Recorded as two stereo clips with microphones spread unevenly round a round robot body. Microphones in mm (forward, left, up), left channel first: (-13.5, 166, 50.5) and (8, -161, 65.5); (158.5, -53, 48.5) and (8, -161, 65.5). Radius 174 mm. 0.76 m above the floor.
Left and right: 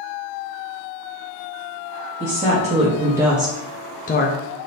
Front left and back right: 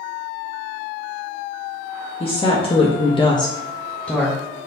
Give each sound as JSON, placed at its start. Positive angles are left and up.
{"t": 2.2, "sound": "a woman speaking", "azimuth_deg": -20, "distance_m": 1.0}